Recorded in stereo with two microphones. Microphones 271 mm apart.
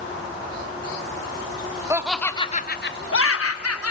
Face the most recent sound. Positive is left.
turn(degrees=70)  # may be behind; listen again after turning